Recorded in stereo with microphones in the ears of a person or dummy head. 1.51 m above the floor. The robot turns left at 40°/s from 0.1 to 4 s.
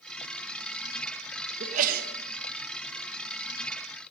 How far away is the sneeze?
About 1.3 m.